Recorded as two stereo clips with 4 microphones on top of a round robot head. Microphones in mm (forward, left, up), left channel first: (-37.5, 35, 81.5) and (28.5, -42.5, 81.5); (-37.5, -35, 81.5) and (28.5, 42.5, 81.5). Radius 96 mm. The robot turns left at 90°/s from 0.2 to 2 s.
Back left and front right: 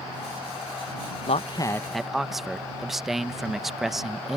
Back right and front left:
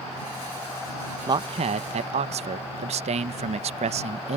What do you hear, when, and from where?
1.3 s a man speaking: 105° left; by 4.4 s 40° left